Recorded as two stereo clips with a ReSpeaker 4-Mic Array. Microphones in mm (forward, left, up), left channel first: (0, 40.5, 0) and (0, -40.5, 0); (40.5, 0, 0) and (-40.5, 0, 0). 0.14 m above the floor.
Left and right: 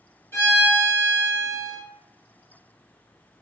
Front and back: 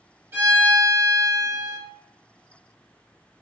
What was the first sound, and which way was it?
A violin, 130° left.